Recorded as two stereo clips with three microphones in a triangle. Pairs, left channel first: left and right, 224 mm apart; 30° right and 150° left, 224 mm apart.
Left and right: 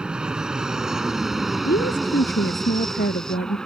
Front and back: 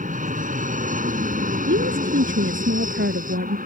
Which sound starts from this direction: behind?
An aircraft, at 0.0 s.